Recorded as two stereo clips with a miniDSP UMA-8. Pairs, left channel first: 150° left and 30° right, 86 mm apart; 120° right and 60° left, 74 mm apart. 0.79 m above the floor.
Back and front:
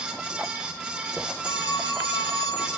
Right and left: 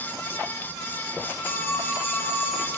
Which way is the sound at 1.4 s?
170° right.